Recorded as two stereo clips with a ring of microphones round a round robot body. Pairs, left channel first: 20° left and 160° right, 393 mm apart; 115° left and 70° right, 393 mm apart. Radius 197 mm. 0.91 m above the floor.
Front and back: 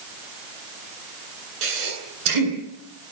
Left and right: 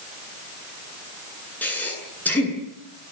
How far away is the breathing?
About 10 m.